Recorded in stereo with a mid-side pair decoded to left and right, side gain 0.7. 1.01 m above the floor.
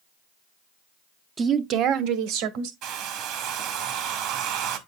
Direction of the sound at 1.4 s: 25° right.